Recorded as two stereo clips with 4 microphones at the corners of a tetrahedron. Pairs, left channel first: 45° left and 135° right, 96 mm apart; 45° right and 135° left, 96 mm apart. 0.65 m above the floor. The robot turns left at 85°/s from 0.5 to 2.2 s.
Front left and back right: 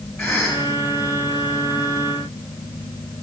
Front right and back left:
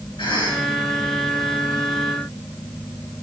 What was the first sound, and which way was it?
A cough, 40° right.